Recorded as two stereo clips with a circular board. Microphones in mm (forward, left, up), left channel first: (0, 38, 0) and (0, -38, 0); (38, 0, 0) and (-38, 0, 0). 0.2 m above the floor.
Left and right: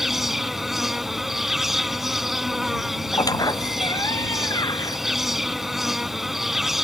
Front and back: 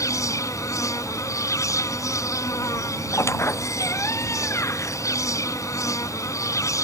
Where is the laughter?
No laughter in this recording.